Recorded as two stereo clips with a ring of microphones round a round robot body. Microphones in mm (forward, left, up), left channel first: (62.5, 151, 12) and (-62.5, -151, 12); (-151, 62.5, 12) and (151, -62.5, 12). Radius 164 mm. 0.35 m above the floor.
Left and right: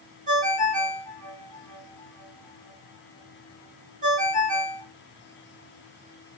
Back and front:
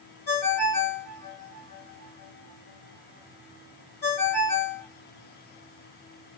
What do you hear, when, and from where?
0.3 s a ringtone: straight behind, 1.2 m